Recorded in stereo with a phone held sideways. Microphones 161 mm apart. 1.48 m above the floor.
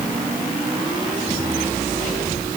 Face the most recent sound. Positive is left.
No sound to turn to.